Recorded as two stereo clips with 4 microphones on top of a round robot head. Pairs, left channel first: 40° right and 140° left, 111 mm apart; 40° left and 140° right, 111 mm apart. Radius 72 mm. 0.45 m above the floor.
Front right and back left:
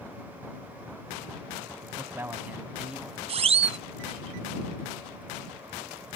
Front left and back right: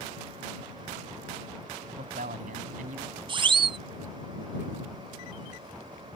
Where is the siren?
175° left.